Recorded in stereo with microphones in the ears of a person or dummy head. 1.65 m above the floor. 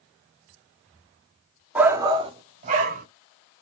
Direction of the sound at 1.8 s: 5° right (ahead or behind).